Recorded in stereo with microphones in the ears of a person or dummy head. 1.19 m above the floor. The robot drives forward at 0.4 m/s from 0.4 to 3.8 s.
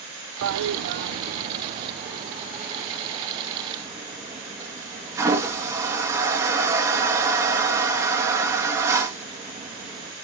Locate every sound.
0.4 s a toilet flushing: 70° right (ahead or behind), 0.5 m; by 10.1 s 20° right (ahead or behind), 1.5 m